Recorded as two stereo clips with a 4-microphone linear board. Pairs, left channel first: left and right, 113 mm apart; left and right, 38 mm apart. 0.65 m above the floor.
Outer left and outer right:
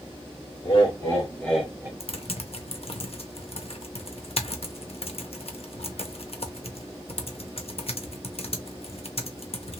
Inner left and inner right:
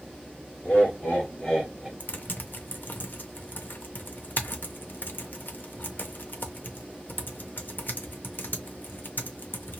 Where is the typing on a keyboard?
65° left (ahead or behind), 0.6 m.